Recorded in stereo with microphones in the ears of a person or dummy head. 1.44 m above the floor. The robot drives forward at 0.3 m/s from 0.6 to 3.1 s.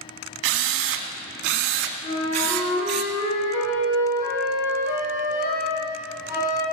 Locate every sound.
0.4 s a drill: 75° right (ahead or behind), 1.9 m; by 3.0 s 60° right (ahead or behind), 2 m
2.0 s a flute: 80° left, 7 m